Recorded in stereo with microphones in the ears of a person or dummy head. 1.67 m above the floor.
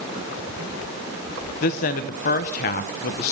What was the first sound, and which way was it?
A woman speaking, 40° left (ahead or behind).